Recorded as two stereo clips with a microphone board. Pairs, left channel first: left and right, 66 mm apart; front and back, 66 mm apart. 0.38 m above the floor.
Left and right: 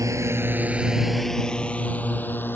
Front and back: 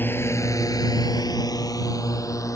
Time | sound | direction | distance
0.0 | a drone | 55° right | ?